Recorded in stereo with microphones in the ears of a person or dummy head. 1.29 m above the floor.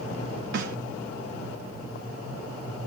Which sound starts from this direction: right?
A snare drum, at 0.5 s.